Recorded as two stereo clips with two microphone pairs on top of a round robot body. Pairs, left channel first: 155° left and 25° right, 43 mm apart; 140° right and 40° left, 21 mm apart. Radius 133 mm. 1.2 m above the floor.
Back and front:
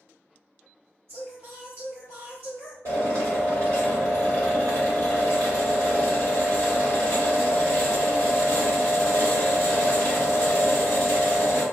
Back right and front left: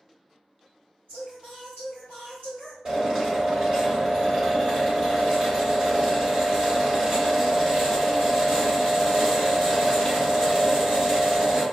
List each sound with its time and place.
1.1 s singing: 20° left, 0.9 m
2.9 s a drill: 5° right, 1.4 m